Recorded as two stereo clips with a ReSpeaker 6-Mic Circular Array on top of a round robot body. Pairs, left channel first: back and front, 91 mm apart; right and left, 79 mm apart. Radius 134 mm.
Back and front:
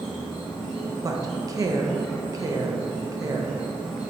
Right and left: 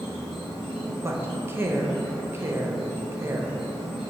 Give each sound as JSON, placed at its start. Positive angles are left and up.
{"t": 0.0, "sound": "an insect", "azimuth_deg": 90, "distance_m": 1.4}
{"t": 1.0, "sound": "a woman speaking", "azimuth_deg": 40, "distance_m": 0.5}